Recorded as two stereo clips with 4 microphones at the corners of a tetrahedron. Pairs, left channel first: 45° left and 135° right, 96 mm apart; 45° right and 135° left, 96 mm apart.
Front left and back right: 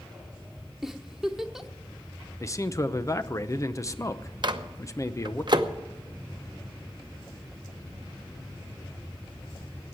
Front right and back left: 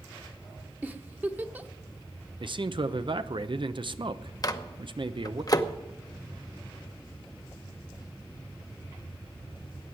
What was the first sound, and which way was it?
A giggle, 150° left.